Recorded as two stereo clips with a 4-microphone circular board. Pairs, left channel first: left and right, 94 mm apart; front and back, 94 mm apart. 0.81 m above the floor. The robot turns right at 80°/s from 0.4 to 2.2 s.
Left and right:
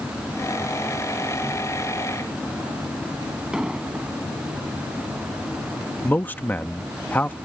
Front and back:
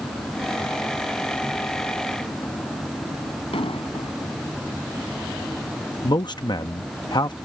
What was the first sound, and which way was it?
An explosion, 10° right.